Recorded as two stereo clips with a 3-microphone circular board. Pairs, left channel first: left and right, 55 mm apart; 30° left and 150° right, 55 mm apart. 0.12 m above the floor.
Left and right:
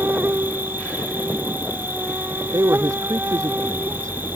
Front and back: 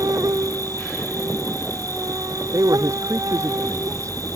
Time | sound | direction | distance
0.0 | an insect | 145° right | ?
2.5 | a man speaking | 120° right | ?